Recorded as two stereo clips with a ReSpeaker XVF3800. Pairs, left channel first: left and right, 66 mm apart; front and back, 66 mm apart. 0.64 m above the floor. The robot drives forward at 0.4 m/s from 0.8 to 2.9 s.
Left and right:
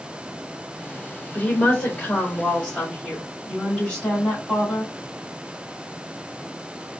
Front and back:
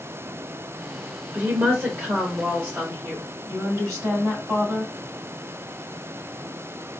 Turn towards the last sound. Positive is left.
turn(degrees=155)